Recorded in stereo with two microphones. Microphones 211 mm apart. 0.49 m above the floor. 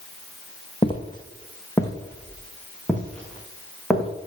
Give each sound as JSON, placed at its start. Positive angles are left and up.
{"t": 0.8, "sound": "footsteps", "side_deg": 25, "distance_m": 1.2}